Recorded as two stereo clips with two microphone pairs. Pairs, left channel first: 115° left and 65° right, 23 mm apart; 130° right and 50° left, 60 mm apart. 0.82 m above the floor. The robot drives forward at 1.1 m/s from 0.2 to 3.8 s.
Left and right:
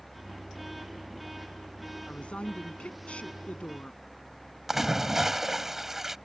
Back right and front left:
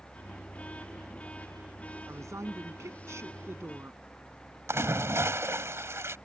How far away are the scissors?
I don't hear scissors.